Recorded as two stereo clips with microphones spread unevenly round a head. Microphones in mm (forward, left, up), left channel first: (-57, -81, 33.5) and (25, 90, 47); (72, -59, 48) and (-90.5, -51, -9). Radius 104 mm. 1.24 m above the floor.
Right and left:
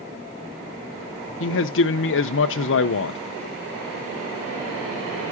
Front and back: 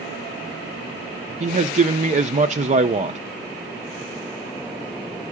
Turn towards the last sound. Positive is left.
turn(degrees=-140)